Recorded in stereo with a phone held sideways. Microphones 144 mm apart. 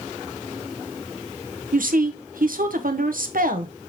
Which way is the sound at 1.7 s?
90° right.